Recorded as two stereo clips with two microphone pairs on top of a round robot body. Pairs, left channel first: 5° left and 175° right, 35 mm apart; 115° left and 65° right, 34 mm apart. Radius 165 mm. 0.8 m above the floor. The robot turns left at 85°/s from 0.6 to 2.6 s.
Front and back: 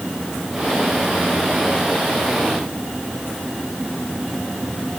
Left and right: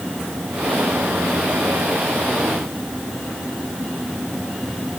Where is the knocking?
I don't hear knocking.